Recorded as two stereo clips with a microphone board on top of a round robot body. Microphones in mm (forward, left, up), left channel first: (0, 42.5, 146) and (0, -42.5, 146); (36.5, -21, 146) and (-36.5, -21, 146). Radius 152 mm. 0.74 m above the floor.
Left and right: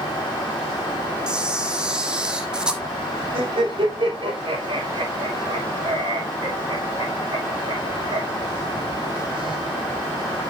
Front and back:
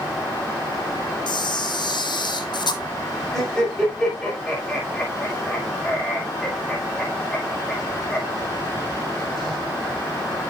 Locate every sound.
1.3 s a camera shutter: 10° right, 1.1 m
3.3 s laughter: 85° right, 5.5 m